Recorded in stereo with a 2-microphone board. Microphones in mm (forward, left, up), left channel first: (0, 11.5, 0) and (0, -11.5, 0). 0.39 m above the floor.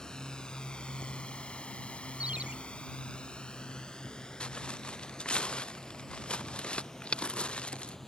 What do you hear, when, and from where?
0.0 s a drone: 35° left (ahead or behind); by 8.1 s 20° left (ahead or behind)
2.2 s a ringtone: 65° right (ahead or behind)
4.4 s footsteps: 55° left (ahead or behind); by 8.0 s 60° left (ahead or behind)